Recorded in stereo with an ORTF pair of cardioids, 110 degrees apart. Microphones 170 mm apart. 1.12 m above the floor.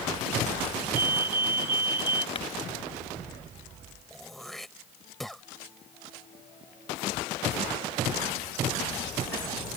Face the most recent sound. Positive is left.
turn(degrees=0)